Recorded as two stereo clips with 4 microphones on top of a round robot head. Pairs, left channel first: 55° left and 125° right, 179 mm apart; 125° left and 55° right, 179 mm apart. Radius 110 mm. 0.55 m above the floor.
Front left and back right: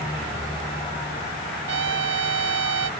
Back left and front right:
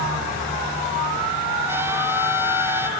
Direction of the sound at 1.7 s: 130° right.